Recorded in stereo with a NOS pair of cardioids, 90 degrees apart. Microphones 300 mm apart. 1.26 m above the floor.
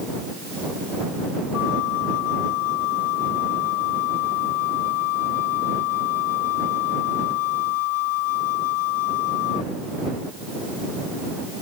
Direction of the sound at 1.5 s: 55° left.